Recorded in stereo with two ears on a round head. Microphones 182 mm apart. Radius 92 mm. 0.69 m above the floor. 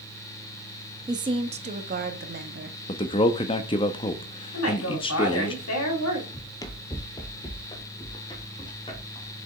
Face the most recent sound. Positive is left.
turn(degrees=25)  # may be behind; listen again after turning